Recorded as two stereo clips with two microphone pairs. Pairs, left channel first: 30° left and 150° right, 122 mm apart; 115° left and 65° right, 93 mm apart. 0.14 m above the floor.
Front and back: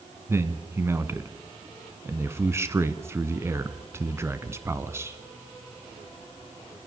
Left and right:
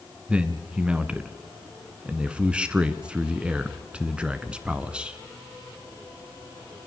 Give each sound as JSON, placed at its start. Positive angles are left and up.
{"t": 0.3, "sound": "a man speaking", "azimuth_deg": -125, "distance_m": 1.1}